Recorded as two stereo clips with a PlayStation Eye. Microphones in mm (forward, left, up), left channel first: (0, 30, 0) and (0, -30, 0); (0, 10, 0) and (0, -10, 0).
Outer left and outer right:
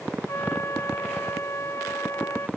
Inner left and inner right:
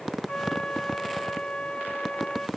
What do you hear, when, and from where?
0.3 s a flute: 45° left (ahead or behind)